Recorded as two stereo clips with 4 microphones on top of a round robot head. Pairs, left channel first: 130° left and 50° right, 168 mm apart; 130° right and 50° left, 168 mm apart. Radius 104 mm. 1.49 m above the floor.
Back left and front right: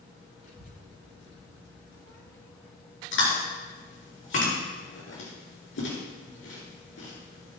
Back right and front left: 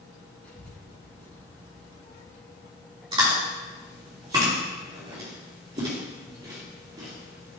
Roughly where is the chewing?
Behind left.